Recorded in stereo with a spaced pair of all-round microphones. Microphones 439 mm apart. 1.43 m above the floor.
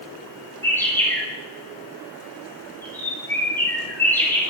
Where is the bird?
5° left (ahead or behind), 7 m.